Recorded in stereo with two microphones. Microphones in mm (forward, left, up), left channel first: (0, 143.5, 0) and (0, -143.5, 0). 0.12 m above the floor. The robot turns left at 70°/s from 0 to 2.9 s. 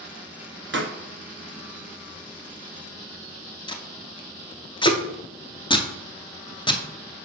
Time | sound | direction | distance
0.7 | a pop | 40° right (ahead or behind) | 0.8 m
3.7 | tape being pulled | 15° left (ahead or behind) | 0.7 m